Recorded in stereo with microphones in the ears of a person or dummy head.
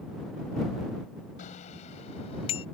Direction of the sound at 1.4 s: 45° left (ahead or behind).